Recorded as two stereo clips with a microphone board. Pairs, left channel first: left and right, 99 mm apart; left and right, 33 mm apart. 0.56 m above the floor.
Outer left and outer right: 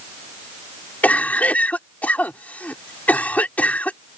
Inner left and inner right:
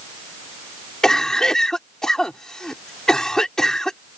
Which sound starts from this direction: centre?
A cough, at 1.0 s.